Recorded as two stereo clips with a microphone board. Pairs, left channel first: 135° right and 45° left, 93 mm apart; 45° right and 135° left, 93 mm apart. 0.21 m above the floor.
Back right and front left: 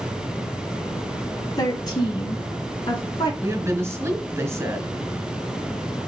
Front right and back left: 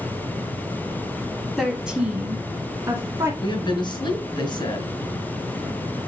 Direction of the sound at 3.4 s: 15° right.